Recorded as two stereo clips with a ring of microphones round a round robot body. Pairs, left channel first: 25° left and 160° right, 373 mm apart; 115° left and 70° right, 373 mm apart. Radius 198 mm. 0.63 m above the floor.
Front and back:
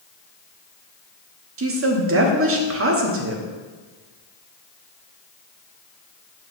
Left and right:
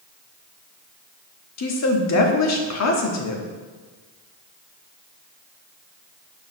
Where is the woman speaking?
155° left, 1.3 m.